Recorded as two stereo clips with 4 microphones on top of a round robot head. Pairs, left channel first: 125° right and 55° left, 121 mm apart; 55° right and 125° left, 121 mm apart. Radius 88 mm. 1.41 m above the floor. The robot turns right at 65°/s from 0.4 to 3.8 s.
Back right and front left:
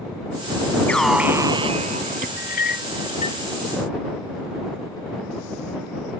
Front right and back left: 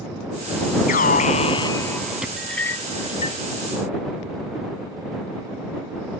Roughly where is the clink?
Behind right.